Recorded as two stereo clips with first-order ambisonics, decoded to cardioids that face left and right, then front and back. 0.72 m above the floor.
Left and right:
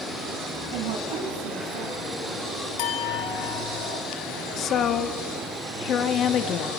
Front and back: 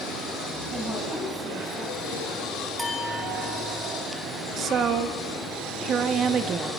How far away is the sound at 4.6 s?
About 1.3 m.